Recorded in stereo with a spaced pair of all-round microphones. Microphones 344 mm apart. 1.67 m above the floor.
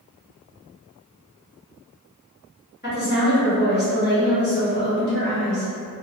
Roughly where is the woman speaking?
Left.